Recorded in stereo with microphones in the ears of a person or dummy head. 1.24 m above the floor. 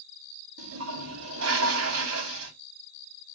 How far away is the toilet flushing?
About 2.5 m.